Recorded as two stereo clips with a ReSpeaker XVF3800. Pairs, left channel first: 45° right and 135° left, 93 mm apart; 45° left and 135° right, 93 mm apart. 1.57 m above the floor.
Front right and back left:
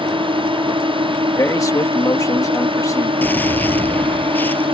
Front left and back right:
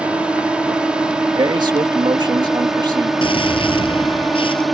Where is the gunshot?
25° left.